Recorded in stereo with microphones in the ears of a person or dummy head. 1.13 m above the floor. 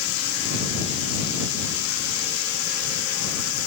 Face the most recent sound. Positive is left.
turn(degrees=90)